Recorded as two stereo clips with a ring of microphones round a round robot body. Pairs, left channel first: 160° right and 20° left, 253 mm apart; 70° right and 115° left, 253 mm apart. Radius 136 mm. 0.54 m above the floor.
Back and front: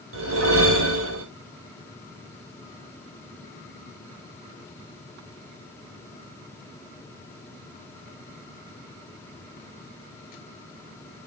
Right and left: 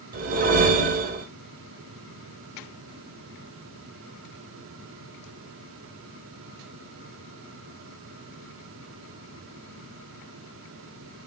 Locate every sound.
0.1 s a whoosh: 55° left, 1.9 m